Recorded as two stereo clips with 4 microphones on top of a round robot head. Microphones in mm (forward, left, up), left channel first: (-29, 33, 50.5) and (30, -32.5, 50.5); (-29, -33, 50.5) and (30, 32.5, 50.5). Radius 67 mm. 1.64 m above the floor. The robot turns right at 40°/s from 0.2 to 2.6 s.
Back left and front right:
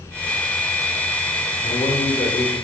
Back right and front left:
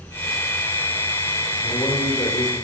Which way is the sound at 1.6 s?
155° left.